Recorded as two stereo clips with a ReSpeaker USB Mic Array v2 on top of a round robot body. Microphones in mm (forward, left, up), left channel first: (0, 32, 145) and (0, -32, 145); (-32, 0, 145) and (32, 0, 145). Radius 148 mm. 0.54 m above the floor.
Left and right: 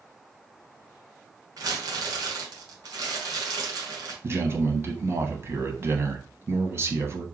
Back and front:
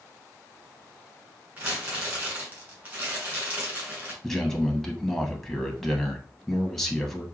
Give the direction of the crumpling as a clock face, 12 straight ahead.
2 o'clock.